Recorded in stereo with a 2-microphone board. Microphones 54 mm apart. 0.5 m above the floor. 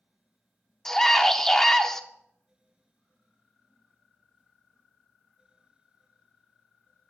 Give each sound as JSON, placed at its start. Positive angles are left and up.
{"t": 0.8, "sound": "a scream", "side_deg": 10, "distance_m": 0.7}